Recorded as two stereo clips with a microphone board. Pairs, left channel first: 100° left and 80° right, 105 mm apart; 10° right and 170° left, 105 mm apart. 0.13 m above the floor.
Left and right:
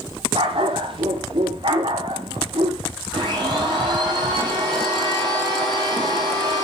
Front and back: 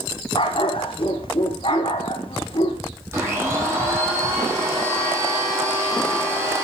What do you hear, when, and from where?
0.3 s a dog barking: 45° right, 2.5 m
3.1 s a blender: 125° right, 7.5 m